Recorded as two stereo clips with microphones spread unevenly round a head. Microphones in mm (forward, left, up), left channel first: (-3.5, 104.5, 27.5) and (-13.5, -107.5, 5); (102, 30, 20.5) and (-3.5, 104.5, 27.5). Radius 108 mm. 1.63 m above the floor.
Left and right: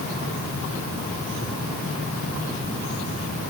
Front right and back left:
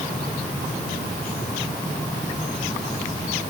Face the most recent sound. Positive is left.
No sound to turn to.